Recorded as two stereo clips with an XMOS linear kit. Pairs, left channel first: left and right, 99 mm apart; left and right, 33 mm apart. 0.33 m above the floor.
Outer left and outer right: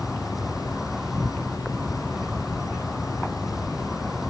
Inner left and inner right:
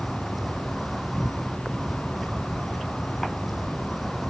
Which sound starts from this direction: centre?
An insect, at 0.0 s.